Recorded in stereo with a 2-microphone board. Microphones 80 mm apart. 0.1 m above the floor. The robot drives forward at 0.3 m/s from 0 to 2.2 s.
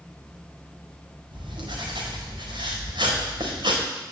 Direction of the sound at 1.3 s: 85° right.